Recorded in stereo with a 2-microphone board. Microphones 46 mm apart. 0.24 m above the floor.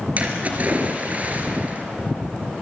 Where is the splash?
35° right (ahead or behind), 3 m.